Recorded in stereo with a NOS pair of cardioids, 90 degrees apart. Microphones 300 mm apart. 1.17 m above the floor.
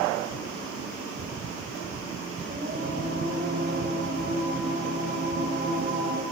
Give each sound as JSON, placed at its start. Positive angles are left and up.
{"t": 2.5, "sound": "singing", "azimuth_deg": -35, "distance_m": 6.0}